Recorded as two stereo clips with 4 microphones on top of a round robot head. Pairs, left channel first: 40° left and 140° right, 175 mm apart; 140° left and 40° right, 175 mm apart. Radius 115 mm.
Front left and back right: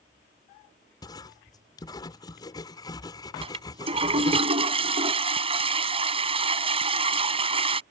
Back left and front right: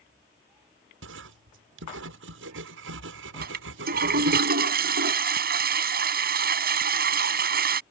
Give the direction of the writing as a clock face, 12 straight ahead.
1 o'clock.